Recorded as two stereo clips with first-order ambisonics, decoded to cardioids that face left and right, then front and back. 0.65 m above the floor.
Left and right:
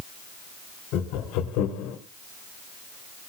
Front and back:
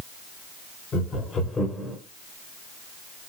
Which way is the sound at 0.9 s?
60° left.